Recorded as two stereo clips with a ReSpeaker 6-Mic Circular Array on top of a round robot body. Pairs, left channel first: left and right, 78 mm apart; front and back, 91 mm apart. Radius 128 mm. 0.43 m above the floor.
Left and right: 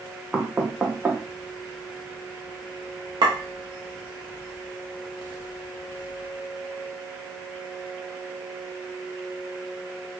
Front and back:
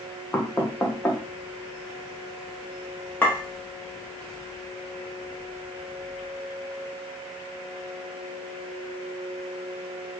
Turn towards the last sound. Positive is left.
turn(degrees=-70)